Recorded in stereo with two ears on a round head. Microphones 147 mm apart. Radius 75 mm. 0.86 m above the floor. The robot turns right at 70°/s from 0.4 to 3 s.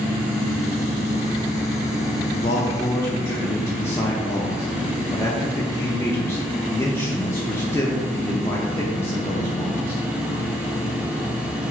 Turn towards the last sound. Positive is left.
turn(degrees=150)